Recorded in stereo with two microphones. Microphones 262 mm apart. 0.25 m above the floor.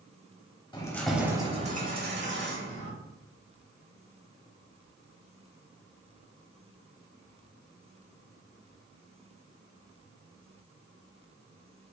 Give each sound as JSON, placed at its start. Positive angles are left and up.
{"t": 0.7, "sound": "keys jangling", "side_deg": 20, "distance_m": 0.7}